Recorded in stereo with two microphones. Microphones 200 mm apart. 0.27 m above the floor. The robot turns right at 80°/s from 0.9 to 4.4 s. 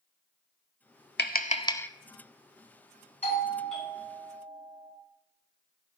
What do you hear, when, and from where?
1.2 s tapping: 60° left (ahead or behind), 0.5 m; by 1.9 s 10° left (ahead or behind), 0.5 m
3.2 s a doorbell: 135° left, 3 m; by 4.9 s 130° right, 3 m